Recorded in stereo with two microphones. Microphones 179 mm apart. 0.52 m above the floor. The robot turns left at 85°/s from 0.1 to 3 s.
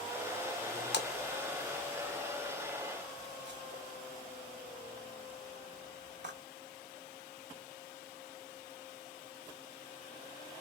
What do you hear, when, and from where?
0.9 s a splash: 70° left (ahead or behind), 0.5 m; by 6.4 s 75° right (ahead or behind), 0.5 m